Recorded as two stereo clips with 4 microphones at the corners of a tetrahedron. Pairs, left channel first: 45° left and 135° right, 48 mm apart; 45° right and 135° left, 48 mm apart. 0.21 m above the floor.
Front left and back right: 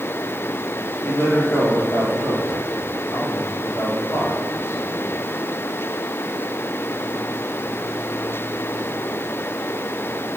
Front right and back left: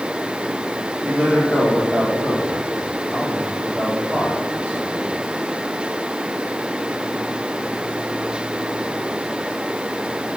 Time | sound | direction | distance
1.0 | a man speaking | 70° left | 5 m